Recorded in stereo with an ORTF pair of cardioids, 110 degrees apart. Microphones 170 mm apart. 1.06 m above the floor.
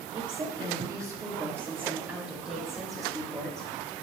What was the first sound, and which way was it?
A woman speaking, 30° right.